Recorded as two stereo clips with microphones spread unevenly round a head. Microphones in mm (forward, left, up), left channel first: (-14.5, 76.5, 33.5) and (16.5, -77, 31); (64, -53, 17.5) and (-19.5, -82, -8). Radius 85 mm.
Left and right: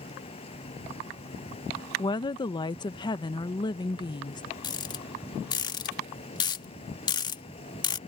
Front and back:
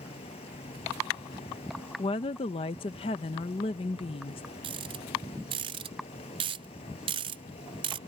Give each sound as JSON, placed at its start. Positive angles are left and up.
{"t": 0.0, "sound": "an insect", "azimuth_deg": 45}
{"t": 2.0, "sound": "a woman speaking", "azimuth_deg": 45}
{"t": 4.6, "sound": "a rattle", "azimuth_deg": 165}